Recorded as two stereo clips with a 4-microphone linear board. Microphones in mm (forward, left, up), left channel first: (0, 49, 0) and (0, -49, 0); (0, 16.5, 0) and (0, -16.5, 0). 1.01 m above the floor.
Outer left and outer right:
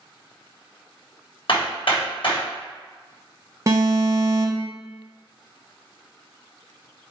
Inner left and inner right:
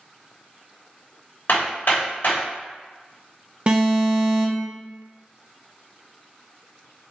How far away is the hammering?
About 3.5 m.